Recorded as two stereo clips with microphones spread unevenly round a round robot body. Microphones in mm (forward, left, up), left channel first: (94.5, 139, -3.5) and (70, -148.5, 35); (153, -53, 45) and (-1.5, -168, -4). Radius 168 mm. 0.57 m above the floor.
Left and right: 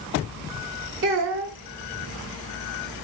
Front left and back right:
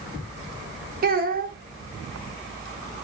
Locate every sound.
1.0 s a child speaking: 150° right, 1.0 m